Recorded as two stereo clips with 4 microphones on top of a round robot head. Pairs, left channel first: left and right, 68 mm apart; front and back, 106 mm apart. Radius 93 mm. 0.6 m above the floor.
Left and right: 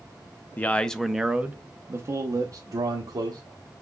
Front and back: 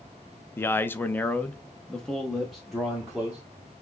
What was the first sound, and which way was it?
A man speaking, 50° left.